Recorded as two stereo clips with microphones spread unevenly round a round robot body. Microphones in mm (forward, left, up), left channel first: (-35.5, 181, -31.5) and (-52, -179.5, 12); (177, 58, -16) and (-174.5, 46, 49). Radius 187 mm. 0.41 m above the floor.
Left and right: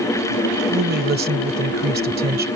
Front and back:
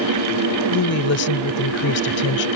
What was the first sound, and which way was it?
A woman speaking, 30° right.